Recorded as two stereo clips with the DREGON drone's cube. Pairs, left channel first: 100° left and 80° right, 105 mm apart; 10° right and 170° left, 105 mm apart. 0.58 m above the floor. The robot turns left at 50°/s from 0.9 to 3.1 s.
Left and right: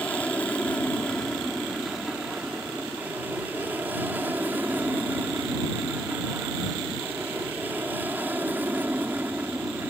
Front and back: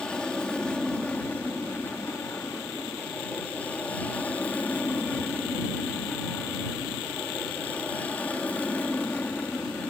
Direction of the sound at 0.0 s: 55° left.